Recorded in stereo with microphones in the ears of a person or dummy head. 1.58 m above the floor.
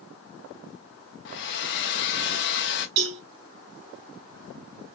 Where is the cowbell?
60° right (ahead or behind), 2 m.